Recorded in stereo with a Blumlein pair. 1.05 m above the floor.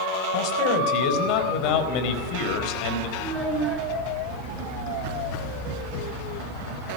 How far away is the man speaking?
About 4.5 m.